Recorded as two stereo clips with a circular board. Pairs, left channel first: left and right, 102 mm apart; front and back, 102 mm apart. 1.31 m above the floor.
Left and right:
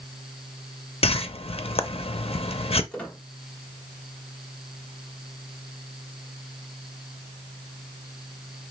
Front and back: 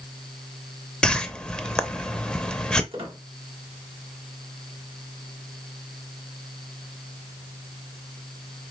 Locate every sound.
1.0 s a whoosh: 80° left, 0.5 m
2.9 s a squeak: 165° left, 1.5 m